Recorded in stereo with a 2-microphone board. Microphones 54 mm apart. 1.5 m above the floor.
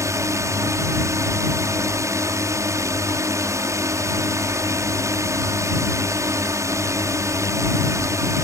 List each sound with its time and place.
0.0 s a drone: 70° right (ahead or behind)